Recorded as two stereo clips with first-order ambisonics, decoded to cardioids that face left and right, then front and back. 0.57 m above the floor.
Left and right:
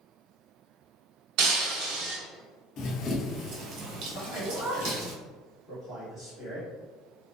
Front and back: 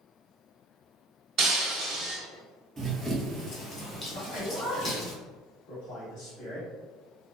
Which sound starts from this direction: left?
Running footsteps, at 2.8 s.